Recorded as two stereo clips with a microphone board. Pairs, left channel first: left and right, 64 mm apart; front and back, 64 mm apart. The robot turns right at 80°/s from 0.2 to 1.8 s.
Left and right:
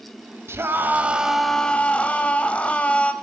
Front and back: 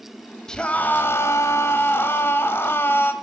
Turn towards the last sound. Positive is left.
turn(degrees=30)